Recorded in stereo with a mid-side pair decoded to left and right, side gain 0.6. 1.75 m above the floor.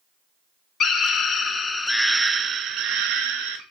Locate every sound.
0.8 s a scream: 50° left, 1.0 m; by 3.6 s 75° right, 1.0 m